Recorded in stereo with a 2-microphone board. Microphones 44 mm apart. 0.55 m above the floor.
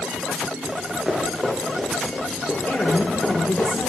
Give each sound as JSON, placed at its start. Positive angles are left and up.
{"t": 0.7, "sound": "running footsteps", "side_deg": -10, "distance_m": 3.5}
{"t": 2.7, "sound": "a woman speaking", "side_deg": 50, "distance_m": 1.3}